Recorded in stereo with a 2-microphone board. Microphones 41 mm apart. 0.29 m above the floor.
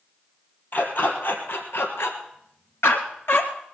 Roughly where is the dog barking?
Left.